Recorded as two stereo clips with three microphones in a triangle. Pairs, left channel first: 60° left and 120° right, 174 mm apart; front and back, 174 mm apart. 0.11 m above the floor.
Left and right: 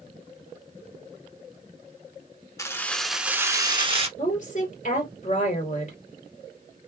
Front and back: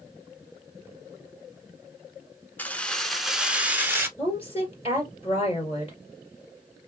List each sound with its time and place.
2.6 s keys jangling: 60° left, 1.0 m; by 4.1 s 115° right, 1.1 m
4.2 s a woman speaking: 40° left, 2.5 m